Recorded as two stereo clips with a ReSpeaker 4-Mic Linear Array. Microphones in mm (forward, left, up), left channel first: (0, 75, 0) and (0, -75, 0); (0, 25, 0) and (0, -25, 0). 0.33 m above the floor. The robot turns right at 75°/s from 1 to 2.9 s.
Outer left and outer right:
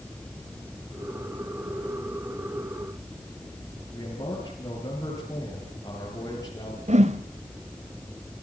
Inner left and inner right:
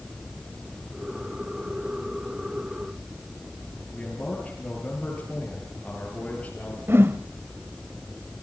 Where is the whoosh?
45° right (ahead or behind), 1.2 m.